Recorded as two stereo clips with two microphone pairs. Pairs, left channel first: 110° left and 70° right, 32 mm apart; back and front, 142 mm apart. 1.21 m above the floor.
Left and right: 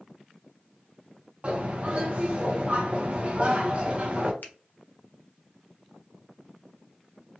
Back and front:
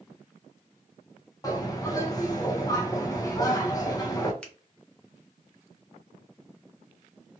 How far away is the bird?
About 0.6 m.